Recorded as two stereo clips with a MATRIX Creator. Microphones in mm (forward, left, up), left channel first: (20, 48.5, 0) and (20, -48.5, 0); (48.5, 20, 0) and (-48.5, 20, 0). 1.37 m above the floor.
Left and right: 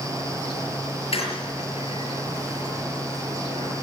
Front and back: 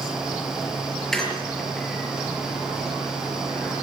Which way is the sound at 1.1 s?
85° left.